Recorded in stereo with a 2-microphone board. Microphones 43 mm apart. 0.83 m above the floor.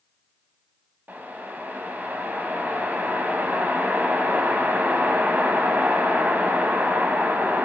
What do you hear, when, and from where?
1.1 s a whoosh: 45° right (ahead or behind), 0.8 m